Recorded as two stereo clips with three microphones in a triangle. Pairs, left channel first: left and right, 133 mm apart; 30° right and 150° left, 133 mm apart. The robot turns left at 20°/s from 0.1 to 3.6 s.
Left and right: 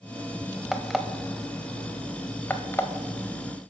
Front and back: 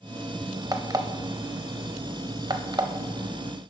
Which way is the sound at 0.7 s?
175° right.